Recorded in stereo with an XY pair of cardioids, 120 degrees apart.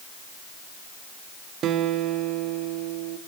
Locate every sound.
1.6 s a guitar: 65° right, 1.4 m